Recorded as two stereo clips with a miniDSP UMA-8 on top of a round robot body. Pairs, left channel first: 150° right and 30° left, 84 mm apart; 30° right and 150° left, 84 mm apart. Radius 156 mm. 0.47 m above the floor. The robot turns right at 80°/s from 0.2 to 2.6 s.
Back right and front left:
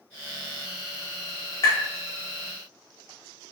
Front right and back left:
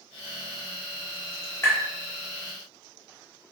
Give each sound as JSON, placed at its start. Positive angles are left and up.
{"t": 1.6, "sound": "tapping", "azimuth_deg": -100, "distance_m": 0.5}